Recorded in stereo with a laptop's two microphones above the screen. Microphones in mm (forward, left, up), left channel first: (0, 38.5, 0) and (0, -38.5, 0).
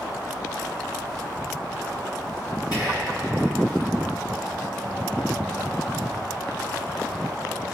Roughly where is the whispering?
Left.